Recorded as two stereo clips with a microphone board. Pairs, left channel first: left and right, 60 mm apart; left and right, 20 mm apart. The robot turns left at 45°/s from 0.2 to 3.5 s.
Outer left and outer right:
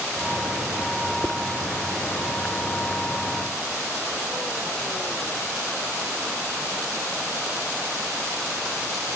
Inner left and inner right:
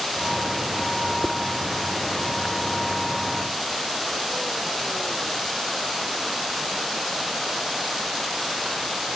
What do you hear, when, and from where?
1.2 s dishes clattering: 20° right (ahead or behind); by 1.4 s 15° right (ahead or behind)